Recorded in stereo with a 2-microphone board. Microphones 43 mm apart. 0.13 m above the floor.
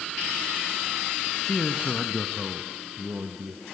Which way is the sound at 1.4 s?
15° left (ahead or behind).